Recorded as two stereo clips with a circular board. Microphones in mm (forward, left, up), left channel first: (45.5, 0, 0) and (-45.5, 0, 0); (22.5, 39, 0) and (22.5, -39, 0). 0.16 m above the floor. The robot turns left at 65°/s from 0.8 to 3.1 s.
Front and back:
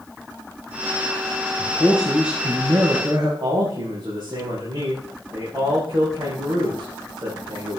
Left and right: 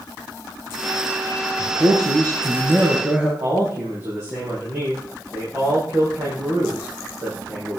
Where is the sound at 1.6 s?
60° right, 2.5 m; by 3.3 s 160° right, 2.5 m.